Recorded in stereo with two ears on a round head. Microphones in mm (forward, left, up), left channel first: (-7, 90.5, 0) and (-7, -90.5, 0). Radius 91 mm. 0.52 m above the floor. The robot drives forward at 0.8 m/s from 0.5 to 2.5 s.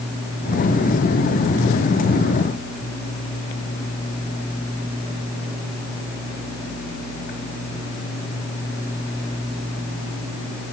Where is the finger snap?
No finger snap in this recording.